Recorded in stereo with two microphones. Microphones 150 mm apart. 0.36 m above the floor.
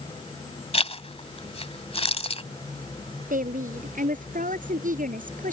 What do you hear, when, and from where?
0.7 s a zipper: 40° left (ahead or behind)
3.3 s a woman speaking: 60° right (ahead or behind)